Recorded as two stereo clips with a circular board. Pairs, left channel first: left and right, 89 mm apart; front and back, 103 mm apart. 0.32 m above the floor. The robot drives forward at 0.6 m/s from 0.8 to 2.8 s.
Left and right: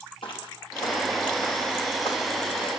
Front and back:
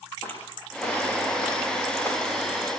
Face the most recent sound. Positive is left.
turn(degrees=70)